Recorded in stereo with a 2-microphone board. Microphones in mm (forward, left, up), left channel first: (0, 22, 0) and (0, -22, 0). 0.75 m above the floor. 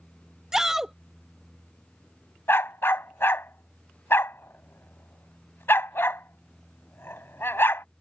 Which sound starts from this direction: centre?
A shout, at 0.5 s.